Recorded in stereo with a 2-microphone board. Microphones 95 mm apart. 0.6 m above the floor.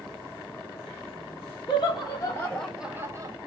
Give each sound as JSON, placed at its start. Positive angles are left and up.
{"t": 1.7, "sound": "laughter", "side_deg": 50, "distance_m": 1.1}